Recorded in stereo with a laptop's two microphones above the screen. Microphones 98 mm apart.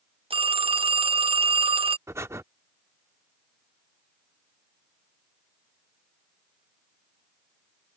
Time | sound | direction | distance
0.3 | a phone ringing | 70° right (ahead or behind) | ?
2.1 | breathing | 30° right (ahead or behind) | ?